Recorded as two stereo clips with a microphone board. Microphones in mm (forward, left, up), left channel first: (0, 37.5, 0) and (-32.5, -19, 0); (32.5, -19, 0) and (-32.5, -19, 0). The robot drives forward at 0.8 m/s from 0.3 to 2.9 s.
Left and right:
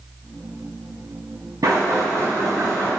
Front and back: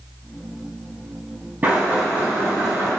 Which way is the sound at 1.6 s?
120° right.